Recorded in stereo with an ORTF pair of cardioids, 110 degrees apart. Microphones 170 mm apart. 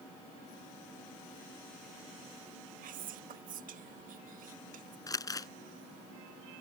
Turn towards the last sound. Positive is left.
turn(degrees=20)